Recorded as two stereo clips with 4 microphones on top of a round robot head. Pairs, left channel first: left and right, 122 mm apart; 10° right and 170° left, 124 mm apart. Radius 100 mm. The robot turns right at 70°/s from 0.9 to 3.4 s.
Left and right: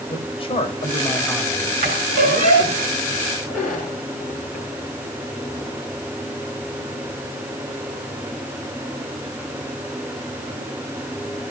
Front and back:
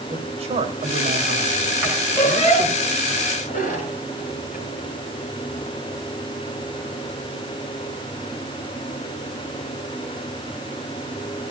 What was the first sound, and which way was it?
A man speaking, 135° left.